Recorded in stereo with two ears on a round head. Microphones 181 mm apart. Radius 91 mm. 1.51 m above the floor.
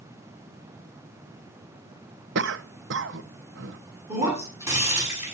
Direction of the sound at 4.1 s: 15° right (ahead or behind).